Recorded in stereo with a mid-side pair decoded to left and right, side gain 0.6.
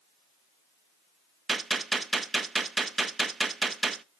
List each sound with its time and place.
1.5 s a gunshot: 25° right, 0.7 m